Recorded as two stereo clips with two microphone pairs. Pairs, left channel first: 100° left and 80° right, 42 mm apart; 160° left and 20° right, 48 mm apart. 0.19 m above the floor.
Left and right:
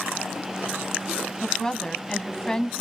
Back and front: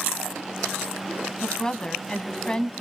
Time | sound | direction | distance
1.4 | a woman speaking | 130° left | 1.0 m